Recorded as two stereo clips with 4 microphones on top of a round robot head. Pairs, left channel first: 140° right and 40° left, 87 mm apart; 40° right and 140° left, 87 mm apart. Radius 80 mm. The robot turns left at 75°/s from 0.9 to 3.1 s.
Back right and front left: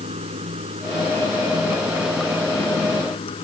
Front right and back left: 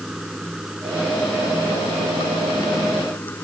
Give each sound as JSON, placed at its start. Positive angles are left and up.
{"t": 0.0, "sound": "running water", "azimuth_deg": 50}